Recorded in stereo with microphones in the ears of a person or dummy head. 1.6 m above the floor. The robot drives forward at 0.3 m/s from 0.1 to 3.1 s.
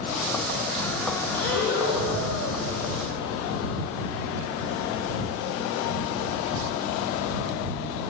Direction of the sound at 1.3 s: 70° left (ahead or behind).